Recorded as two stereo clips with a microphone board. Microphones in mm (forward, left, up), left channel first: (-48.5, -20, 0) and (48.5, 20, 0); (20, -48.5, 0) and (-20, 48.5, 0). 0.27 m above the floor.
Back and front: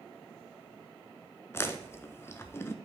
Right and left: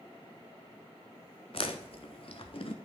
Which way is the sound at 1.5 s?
90° right.